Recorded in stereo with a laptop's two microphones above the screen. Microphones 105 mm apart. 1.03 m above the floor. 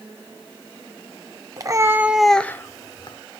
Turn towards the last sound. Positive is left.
turn(degrees=50)  # may be behind; listen again after turning